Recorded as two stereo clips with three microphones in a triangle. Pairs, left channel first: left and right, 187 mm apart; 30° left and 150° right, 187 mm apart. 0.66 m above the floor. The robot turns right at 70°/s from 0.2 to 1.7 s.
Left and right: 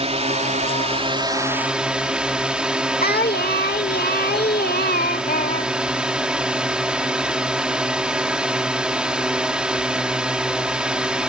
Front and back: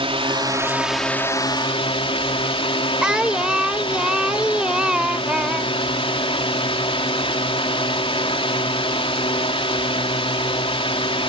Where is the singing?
125° left.